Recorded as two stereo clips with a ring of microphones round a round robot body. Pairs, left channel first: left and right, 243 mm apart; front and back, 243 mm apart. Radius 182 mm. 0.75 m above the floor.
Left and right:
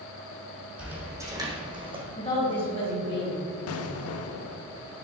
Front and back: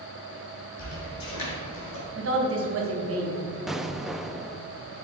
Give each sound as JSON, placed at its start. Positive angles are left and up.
{"t": 0.8, "sound": "footsteps", "azimuth_deg": -5, "distance_m": 2.0}
{"t": 2.1, "sound": "a woman speaking", "azimuth_deg": 160, "distance_m": 2.0}
{"t": 3.7, "sound": "an explosion", "azimuth_deg": 90, "distance_m": 0.6}